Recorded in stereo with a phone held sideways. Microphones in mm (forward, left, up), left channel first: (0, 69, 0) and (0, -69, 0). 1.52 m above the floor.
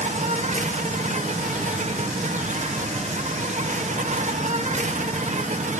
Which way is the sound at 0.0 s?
60° right (ahead or behind).